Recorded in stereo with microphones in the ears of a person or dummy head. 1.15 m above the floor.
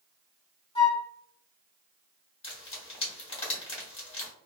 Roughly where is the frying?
Left.